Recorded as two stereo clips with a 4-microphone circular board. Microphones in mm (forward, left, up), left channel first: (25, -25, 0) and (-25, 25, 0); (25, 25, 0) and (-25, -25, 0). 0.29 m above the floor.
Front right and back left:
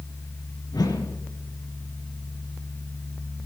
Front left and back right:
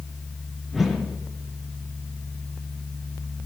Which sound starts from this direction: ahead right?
A whoosh, at 0.7 s.